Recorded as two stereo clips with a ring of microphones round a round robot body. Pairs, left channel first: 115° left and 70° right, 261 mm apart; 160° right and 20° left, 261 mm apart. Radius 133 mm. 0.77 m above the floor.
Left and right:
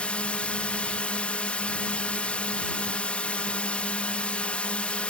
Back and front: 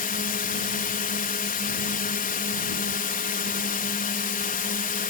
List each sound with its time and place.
0.0 s a drone: 165° right